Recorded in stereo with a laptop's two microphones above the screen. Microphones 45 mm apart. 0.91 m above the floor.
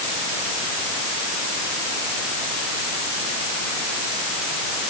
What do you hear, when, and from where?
Only background noise.